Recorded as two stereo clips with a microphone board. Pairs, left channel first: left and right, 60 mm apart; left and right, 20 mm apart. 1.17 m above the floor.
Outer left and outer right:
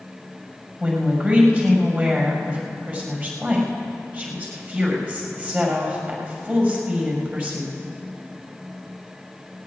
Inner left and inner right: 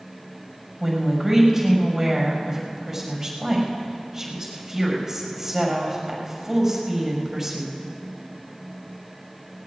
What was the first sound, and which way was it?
A woman speaking, 35° right (ahead or behind).